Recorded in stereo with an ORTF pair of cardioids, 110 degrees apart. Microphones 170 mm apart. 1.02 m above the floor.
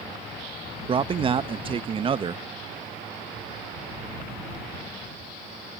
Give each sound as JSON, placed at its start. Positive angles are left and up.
{"t": 0.9, "sound": "a man speaking", "azimuth_deg": -30}